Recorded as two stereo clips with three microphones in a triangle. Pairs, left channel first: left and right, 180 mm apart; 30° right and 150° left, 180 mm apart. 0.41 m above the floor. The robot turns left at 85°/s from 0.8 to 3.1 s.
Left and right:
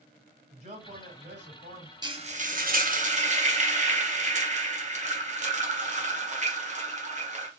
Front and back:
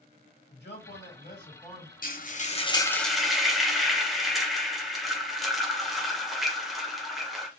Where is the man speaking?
40° right, 2.5 m; by 1.9 s 135° right, 2.5 m.